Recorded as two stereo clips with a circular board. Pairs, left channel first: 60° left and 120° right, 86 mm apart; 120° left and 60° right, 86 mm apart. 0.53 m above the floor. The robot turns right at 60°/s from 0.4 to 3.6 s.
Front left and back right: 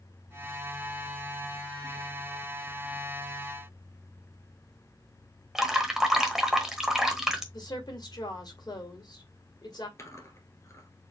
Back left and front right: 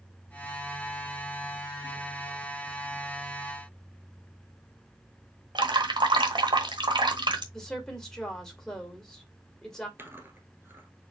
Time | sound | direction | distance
5.5 | dripping | 35° right | 1.1 m
7.5 | a woman speaking | 35° left | 1.9 m
10.0 | chewing | 5° left | 1.5 m